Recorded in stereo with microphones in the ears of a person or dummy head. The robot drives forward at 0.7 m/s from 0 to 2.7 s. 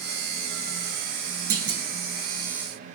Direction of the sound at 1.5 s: 75° right (ahead or behind).